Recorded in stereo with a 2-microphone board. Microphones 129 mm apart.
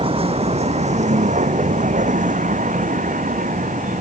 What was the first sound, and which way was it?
A vehicle, 45° right (ahead or behind).